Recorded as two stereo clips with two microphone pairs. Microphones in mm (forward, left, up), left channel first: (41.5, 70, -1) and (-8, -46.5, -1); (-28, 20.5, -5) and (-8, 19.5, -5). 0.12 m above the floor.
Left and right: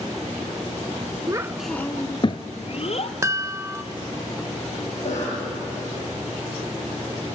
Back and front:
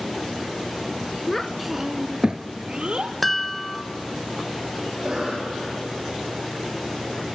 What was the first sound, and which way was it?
A child speaking, 130° right.